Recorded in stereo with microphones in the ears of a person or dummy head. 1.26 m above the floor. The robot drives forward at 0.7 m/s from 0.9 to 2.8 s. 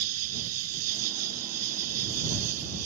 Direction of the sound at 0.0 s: 80° right.